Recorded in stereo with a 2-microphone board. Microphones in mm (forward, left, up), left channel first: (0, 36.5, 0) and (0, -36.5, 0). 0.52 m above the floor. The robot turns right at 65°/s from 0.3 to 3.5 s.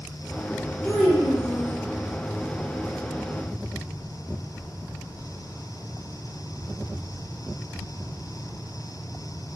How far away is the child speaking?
About 0.7 m.